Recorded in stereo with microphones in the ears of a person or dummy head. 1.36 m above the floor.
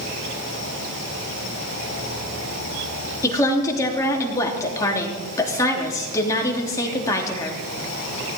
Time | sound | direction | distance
0.0 | an insect | 45° left (ahead or behind) | 6.5 m
3.2 | a woman speaking | 15° left (ahead or behind) | 3.5 m